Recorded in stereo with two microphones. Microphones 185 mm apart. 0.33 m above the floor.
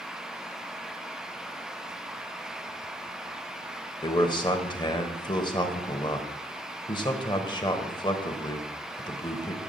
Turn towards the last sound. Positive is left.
turn(degrees=25)  # may be behind; listen again after turning